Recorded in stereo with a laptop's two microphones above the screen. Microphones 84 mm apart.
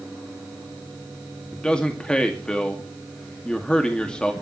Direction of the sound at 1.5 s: 10° left (ahead or behind).